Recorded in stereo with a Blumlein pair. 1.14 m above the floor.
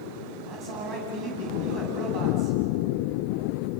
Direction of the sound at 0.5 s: 25° right.